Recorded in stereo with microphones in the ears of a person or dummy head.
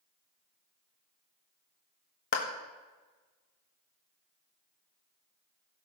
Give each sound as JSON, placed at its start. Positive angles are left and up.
{"t": 2.3, "sound": "a clap", "side_deg": 50, "distance_m": 1.5}